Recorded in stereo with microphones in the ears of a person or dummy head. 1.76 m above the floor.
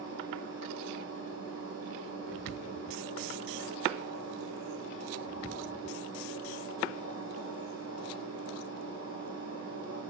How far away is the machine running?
About 1.4 m.